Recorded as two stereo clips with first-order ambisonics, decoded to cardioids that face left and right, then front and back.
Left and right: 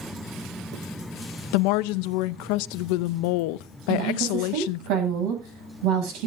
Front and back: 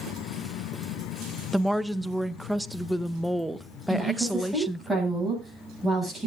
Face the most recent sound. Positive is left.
turn(degrees=-95)